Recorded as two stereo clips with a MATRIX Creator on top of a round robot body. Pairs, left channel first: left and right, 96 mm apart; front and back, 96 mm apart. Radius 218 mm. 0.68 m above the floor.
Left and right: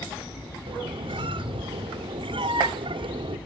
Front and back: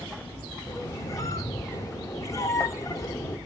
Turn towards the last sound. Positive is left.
turn(degrees=-60)